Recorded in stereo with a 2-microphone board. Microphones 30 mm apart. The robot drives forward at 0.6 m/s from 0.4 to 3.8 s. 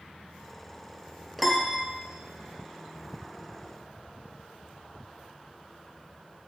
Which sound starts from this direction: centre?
A piano, at 1.4 s.